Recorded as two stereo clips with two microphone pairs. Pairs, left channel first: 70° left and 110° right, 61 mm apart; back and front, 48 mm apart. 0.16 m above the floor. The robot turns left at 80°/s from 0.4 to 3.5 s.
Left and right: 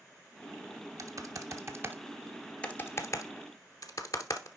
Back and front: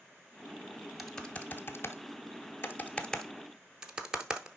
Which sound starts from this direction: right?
Typing on a keyboard, at 1.0 s.